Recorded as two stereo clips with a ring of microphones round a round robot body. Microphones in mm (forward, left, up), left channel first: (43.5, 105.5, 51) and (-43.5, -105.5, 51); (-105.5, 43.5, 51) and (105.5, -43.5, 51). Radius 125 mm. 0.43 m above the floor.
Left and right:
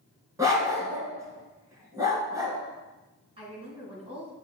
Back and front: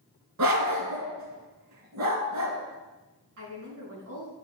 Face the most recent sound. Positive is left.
turn(degrees=-45)